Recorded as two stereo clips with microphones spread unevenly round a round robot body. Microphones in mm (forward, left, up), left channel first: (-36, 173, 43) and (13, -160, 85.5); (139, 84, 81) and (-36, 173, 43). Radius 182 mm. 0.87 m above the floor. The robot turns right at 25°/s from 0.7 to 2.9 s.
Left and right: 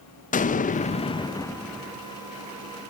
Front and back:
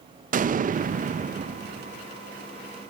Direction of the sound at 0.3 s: 150° left.